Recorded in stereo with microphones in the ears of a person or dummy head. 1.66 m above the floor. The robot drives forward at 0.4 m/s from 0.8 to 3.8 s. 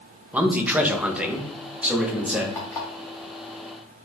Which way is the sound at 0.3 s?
10° right (ahead or behind).